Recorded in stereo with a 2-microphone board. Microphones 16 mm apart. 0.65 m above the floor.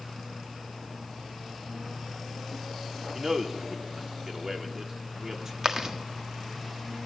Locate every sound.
3.1 s a man speaking: 30° right (ahead or behind), 1.9 m
5.6 s chewing: 35° right (ahead or behind), 1.5 m